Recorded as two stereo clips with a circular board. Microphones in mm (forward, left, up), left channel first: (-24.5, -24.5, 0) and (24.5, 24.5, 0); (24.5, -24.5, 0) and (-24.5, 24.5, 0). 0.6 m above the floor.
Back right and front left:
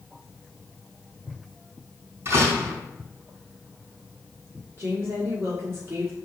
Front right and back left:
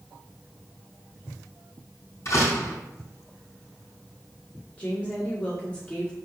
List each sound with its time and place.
2.2 s a door slam: straight ahead, 3.5 m
4.8 s a woman speaking: 20° left, 1.5 m